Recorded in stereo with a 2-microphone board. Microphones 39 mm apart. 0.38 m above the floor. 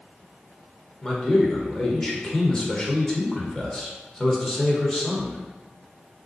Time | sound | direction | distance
1.0 | a man speaking | 15° left (ahead or behind) | 0.9 m